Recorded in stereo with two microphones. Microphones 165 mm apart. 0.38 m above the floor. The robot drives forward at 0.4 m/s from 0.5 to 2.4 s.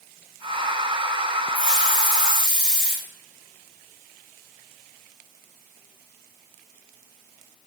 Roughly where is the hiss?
Centre.